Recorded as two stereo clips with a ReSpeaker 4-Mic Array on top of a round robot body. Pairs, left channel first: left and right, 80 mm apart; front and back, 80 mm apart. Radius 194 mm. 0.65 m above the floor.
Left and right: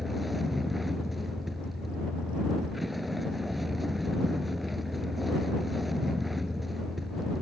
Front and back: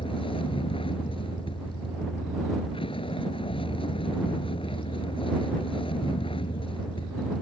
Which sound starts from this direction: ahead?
A vehicle, at 0.0 s.